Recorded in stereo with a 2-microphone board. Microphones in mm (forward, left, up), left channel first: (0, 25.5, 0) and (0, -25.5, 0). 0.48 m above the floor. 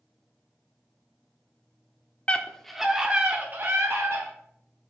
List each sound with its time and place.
2.3 s a scream: 25° left (ahead or behind), 0.9 m; by 4.3 s 50° right (ahead or behind), 1.8 m